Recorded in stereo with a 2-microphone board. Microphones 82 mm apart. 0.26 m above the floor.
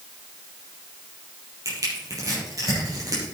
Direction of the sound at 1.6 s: 45° right (ahead or behind).